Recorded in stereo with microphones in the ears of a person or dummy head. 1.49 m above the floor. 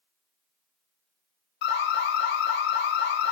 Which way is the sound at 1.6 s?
60° left (ahead or behind).